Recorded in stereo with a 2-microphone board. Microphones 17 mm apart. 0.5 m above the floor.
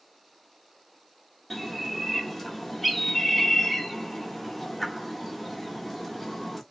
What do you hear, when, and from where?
1.5 s a bird: centre (ahead or behind), 1.2 m